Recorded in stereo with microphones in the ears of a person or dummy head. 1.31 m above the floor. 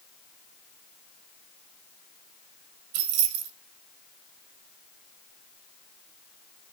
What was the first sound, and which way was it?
Keys jangling, 70° right (ahead or behind).